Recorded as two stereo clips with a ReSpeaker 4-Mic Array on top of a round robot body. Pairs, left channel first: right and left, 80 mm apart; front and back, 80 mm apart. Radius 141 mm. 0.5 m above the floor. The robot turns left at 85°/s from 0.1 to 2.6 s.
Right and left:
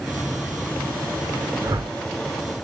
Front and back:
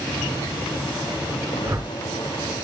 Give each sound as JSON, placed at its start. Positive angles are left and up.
{"t": 1.6, "sound": "a whoosh", "azimuth_deg": 125, "distance_m": 2.5}